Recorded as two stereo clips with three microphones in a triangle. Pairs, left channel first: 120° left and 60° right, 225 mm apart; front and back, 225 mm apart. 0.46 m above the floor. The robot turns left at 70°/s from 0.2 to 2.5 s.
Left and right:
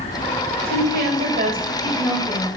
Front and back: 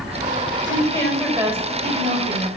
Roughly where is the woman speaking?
Ahead right.